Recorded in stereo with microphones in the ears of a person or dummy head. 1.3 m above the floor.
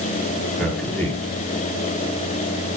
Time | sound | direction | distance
0.6 | a man speaking | 5° left (ahead or behind) | 3.5 m